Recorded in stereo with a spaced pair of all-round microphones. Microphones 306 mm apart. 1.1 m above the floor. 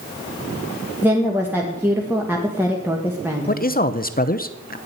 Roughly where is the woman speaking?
Centre.